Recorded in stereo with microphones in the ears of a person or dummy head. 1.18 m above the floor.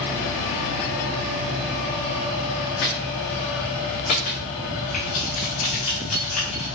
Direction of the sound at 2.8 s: 50° left (ahead or behind).